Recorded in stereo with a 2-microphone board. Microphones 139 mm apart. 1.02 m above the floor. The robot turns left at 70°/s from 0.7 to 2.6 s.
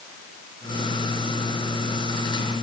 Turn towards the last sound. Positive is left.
No sound to turn to.